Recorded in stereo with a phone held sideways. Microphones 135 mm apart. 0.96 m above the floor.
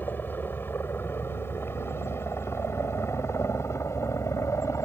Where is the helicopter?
15° left (ahead or behind); by 4.9 s 20° left (ahead or behind).